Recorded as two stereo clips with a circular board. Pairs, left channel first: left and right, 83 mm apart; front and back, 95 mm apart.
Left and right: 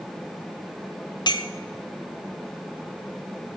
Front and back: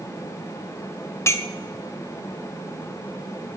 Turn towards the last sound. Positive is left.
turn(degrees=60)